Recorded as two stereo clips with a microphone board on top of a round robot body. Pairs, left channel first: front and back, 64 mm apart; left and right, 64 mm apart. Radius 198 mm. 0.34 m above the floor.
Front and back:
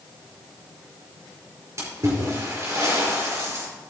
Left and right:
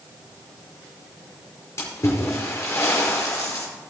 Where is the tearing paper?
I don't hear tearing paper.